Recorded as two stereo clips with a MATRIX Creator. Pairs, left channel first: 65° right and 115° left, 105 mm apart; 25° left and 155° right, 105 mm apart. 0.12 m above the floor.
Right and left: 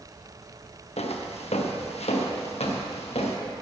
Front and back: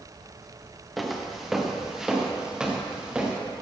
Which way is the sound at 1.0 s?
70° right.